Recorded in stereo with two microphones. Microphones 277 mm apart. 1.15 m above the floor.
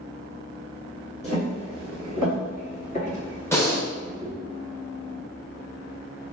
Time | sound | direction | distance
1.2 | footsteps | 25° left (ahead or behind) | 1.8 m
3.5 | breathing | 10° left (ahead or behind) | 0.6 m